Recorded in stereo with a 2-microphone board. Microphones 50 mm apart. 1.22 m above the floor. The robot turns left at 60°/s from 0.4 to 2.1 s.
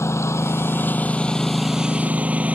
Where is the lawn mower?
70° left (ahead or behind); by 2.6 s 30° right (ahead or behind).